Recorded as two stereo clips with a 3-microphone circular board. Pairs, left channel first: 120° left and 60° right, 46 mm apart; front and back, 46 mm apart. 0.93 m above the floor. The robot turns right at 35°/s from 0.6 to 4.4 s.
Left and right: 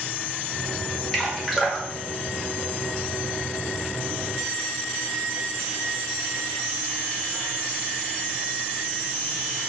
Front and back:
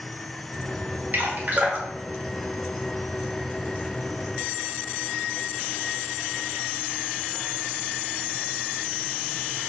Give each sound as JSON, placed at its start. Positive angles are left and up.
{"t": 1.1, "sound": "dripping", "azimuth_deg": -160, "distance_m": 0.6}